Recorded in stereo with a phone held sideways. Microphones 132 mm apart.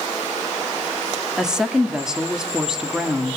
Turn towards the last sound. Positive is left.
turn(degrees=-5)  # may be behind; listen again after turning